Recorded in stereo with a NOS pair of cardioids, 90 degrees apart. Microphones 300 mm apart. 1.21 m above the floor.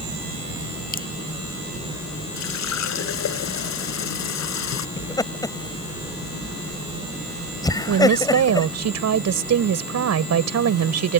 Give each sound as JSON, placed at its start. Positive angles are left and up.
{"t": 0.9, "sound": "dripping", "azimuth_deg": 30}
{"t": 2.4, "sound": "a running tap", "azimuth_deg": 65}
{"t": 5.0, "sound": "laughter", "azimuth_deg": 10}
{"t": 7.9, "sound": "a woman speaking", "azimuth_deg": -60}